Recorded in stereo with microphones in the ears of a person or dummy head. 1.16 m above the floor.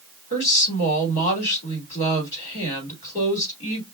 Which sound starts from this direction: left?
A woman speaking, at 0.3 s.